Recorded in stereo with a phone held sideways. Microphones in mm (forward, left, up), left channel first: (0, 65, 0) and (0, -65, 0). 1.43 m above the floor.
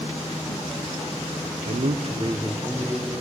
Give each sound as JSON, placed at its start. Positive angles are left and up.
{"t": 1.6, "sound": "a man speaking", "side_deg": -75, "distance_m": 0.5}